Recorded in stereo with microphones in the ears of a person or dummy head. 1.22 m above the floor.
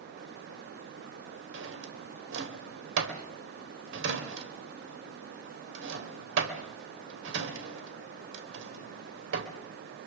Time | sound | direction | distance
1.5 | a drawer | 80° right | 3 m